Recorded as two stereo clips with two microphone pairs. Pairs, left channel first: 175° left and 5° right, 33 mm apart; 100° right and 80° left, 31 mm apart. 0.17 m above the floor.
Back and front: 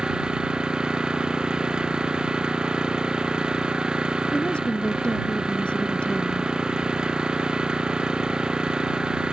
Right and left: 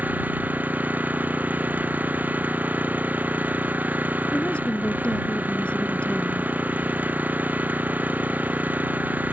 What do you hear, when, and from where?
0.0 s an engine running: 60° left
4.3 s a woman speaking: 140° right